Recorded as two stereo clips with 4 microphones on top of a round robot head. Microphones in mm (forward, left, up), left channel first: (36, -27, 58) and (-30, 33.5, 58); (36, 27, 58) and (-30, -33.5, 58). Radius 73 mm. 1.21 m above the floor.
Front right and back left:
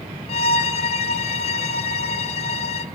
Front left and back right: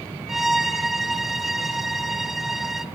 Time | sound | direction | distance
0.3 | a violin | 50° right | 1.0 m